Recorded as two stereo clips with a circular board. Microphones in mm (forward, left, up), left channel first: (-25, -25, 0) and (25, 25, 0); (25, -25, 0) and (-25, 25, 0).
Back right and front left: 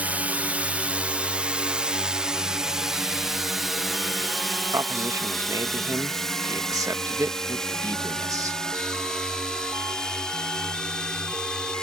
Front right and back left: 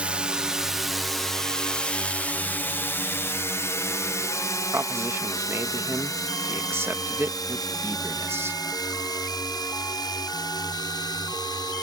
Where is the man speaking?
80° left.